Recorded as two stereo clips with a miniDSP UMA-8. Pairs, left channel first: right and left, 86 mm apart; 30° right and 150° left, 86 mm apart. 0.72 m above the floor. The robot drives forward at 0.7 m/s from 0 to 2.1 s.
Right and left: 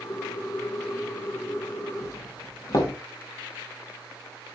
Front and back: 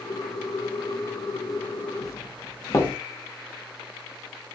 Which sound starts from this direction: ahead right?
A doorbell, at 2.0 s.